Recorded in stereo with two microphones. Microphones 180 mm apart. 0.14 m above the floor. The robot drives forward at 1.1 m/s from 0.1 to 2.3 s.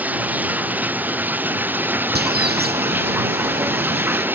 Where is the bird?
65° right (ahead or behind).